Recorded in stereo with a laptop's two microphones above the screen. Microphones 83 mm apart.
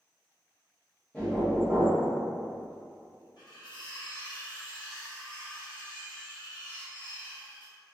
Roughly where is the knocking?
Centre.